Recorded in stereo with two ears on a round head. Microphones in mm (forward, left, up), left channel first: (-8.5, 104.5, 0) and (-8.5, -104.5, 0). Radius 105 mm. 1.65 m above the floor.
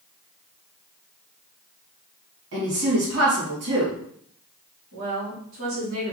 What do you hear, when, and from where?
2.5 s a woman speaking: 65° right (ahead or behind), 2 m
4.9 s a woman speaking: 65° right (ahead or behind), 3 m